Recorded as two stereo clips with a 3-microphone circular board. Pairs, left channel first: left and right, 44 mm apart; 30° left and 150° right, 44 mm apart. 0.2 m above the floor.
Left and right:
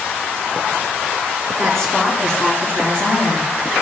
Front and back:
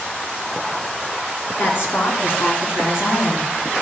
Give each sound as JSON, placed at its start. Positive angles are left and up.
{"t": 1.6, "sound": "a woman speaking", "azimuth_deg": 10, "distance_m": 2.5}